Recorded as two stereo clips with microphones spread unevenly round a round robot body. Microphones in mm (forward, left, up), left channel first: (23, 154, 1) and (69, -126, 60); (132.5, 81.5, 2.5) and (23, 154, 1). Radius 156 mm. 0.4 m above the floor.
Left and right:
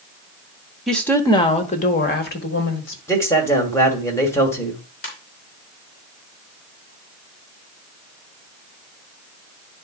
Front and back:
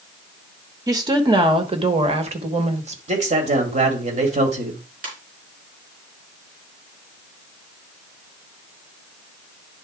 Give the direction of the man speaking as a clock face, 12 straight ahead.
6 o'clock.